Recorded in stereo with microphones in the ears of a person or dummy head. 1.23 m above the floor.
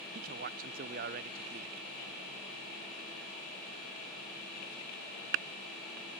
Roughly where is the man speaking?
Right.